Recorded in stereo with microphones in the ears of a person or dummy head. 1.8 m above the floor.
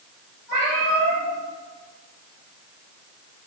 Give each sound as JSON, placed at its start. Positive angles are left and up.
{"t": 0.5, "sound": "a cat meowing", "side_deg": -35, "distance_m": 1.8}